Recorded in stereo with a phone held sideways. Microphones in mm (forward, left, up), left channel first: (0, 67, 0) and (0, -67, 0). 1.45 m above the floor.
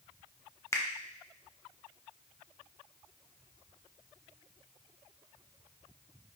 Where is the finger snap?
20° left (ahead or behind), 0.5 m.